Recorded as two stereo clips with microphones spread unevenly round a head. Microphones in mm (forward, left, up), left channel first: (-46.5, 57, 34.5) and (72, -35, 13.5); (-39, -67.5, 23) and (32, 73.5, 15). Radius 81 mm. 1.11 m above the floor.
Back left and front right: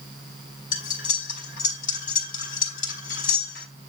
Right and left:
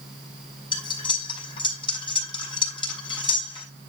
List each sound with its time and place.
0.7 s cutlery clinking: straight behind, 4 m